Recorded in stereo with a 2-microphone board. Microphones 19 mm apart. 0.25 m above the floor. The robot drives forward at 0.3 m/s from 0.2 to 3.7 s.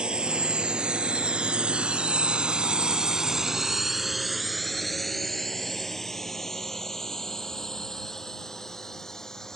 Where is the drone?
55° right (ahead or behind); by 9.6 s 30° left (ahead or behind).